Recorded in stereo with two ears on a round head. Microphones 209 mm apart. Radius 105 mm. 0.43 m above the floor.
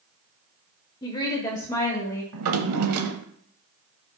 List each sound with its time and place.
1.0 s a woman speaking: 20° left (ahead or behind), 1.0 m; by 2.2 s 15° left (ahead or behind), 1.8 m
2.3 s a drawer: 70° right (ahead or behind), 0.9 m